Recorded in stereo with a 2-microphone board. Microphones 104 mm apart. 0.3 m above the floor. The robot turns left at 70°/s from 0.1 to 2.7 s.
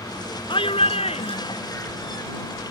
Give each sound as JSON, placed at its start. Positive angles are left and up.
{"t": 0.5, "sound": "a shout", "azimuth_deg": 125}